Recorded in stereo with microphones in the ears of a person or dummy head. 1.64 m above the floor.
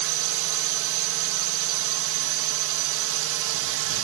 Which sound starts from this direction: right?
A drone, at 0.0 s.